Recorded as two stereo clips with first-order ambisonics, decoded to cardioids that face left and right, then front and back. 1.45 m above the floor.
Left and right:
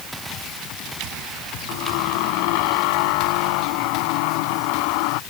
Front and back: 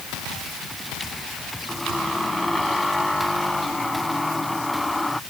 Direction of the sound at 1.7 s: 85° left.